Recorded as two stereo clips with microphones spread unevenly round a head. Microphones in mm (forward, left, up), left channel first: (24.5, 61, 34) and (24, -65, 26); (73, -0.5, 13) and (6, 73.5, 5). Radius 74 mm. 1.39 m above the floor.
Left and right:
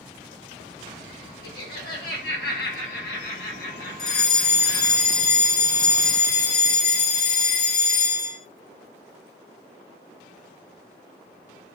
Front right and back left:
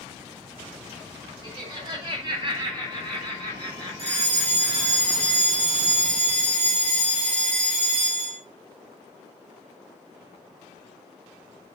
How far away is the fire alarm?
About 5.5 m.